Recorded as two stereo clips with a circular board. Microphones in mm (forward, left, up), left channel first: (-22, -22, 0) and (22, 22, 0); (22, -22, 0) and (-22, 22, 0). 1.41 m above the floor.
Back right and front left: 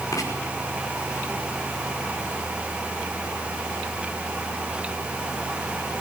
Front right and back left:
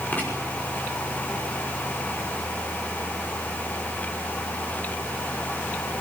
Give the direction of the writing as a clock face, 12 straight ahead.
4 o'clock.